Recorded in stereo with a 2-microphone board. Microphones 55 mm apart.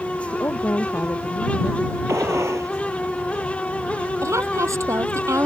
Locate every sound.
0.3 s a woman speaking: 50° left (ahead or behind)
2.1 s a gunshot: 65° right (ahead or behind)
4.2 s a woman speaking: 65° right (ahead or behind)